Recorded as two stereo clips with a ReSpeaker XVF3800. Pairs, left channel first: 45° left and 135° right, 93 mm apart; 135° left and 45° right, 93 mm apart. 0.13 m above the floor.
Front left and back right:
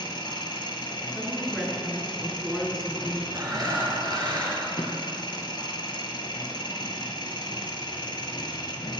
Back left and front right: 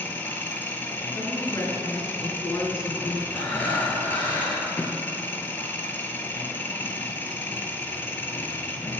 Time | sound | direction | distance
0.0 | an engine running | 70° left | 0.8 m
1.1 | a woman speaking | 140° left | 1.5 m
3.3 | breathing | 165° right | 3 m